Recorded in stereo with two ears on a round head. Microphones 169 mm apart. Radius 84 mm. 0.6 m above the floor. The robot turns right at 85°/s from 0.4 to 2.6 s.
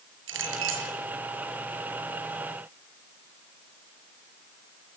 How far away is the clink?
About 6.5 m.